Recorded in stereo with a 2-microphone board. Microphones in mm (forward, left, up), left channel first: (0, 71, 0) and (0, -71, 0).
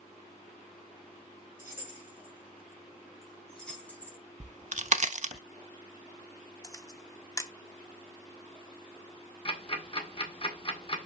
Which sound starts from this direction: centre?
Keys jangling, at 1.6 s.